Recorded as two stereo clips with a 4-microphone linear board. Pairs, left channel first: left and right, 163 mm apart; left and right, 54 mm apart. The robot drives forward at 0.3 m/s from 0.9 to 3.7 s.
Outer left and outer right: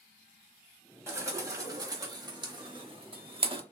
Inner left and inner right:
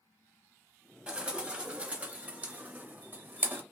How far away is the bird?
About 0.9 m.